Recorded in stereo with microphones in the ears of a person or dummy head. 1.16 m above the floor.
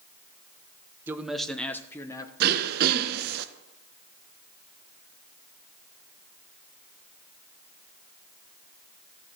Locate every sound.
1.1 s a man speaking: 10° right (ahead or behind), 0.7 m; by 2.3 s 20° left (ahead or behind), 1.2 m
2.4 s throat clearing: 50° right (ahead or behind), 0.8 m